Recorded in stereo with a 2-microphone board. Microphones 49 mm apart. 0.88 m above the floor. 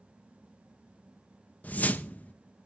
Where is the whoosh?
30° left (ahead or behind), 0.6 m.